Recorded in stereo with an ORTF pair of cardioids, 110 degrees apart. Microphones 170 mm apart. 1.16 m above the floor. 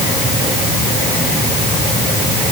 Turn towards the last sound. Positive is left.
No sound to turn to.